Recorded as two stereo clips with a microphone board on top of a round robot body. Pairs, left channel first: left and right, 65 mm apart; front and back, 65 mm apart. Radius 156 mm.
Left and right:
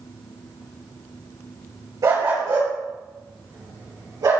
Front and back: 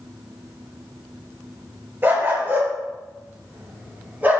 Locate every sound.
2.0 s a dog barking: 125° right, 4.5 m; by 4.4 s 115° right, 6 m